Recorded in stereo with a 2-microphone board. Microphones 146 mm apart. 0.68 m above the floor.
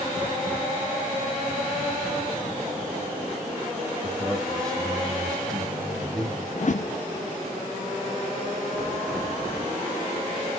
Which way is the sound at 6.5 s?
55° left (ahead or behind).